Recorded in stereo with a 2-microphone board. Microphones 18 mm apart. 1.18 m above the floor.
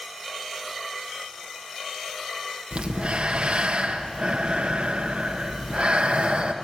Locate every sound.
2.7 s breathing: 65° right (ahead or behind), 1.3 m